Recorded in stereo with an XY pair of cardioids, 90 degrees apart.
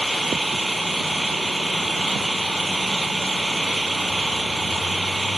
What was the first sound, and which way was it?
An engine running, 10° right.